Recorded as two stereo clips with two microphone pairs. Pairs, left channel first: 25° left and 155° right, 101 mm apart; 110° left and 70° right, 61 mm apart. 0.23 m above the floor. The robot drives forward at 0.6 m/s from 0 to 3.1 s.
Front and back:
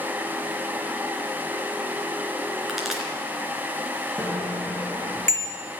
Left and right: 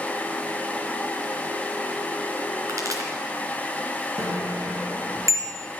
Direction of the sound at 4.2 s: 45° right.